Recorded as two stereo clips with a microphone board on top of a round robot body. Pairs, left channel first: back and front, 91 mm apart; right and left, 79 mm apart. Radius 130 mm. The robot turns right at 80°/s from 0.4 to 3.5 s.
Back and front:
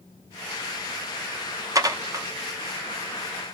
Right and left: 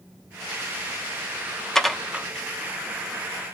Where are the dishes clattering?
10° right, 0.7 m; by 2.3 s 30° left, 0.7 m.